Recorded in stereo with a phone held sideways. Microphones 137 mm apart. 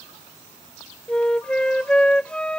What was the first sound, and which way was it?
A flute, 5° left (ahead or behind).